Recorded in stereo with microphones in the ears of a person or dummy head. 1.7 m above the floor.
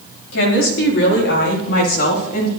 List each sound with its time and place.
0.3 s a woman speaking: 85° left, 5 m; by 2.5 s 55° left (ahead or behind), 4 m